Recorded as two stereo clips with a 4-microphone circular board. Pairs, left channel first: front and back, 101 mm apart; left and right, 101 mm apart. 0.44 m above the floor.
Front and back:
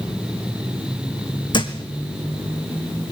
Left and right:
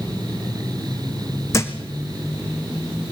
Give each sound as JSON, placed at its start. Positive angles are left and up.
{"t": 1.5, "sound": "a thud", "azimuth_deg": 30, "distance_m": 1.6}